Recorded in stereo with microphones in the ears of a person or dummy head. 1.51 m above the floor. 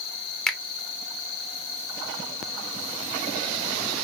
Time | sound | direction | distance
0.5 | a finger snap | 10° left (ahead or behind) | 1.0 m